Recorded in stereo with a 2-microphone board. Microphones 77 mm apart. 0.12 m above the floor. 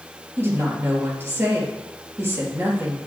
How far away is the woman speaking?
About 3 m.